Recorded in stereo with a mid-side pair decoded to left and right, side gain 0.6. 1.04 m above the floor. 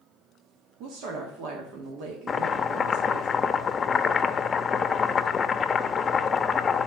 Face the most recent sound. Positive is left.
turn(degrees=35)